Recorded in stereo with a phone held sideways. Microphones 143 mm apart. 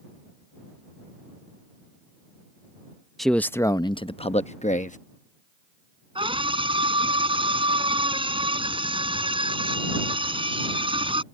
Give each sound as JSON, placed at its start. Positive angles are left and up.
{"t": 3.2, "sound": "a man speaking", "side_deg": 0}
{"t": 6.2, "sound": "a scream", "side_deg": -40}